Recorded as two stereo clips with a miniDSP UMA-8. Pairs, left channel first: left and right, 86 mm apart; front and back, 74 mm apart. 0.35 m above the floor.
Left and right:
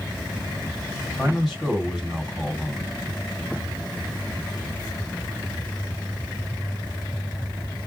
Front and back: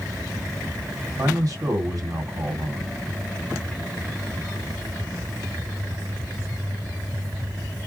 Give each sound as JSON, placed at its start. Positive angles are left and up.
{"t": 1.2, "sound": "a man speaking", "azimuth_deg": 180, "distance_m": 2.0}